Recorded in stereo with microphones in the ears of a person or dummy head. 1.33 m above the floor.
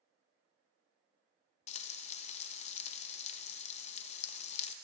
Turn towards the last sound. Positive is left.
turn(degrees=40)  # may be behind; listen again after turning